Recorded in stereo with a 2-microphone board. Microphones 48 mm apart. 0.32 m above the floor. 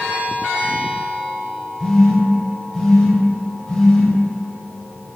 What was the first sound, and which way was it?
A phone buzzing, 15° left (ahead or behind).